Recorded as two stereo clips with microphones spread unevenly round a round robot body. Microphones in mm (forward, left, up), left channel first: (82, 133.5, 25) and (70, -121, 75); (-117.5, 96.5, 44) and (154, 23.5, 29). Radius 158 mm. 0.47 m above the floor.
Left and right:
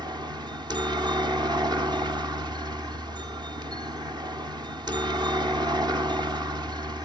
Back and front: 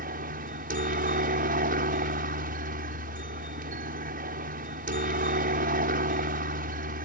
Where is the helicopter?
15° right.